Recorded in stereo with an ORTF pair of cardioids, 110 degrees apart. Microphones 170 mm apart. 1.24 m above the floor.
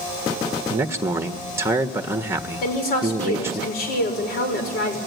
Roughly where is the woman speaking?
Left.